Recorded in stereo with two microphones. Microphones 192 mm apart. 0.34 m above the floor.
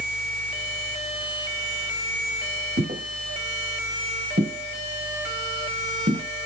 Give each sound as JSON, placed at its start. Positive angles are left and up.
{"t": 2.8, "sound": "footsteps", "side_deg": -80, "distance_m": 6.5}